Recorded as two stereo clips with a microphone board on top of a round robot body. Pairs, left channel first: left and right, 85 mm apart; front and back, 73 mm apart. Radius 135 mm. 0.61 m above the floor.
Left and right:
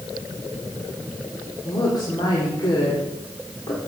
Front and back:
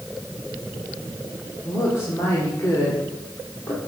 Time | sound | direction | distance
1.6 | a woman speaking | 55° left | 2 m